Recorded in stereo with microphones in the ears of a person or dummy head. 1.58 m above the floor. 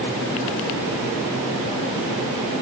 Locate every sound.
Only background noise.